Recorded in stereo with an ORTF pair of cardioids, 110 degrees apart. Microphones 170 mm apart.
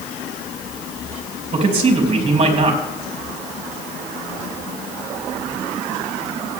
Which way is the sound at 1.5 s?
35° right.